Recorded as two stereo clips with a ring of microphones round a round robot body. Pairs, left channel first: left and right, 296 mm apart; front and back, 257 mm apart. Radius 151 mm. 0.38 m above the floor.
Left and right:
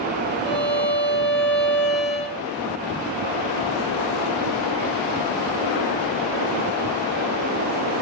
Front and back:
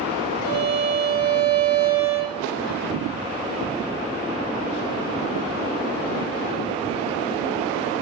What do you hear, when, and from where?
0.4 s a violin: 160° left, 3.5 m